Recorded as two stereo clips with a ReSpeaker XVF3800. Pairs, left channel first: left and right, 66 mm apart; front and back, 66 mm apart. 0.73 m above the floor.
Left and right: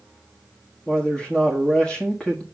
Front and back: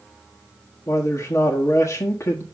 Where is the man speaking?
15° left, 1.3 m.